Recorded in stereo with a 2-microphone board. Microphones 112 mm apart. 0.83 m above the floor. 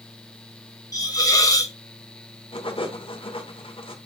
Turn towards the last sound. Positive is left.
turn(degrees=50)  # may be behind; listen again after turning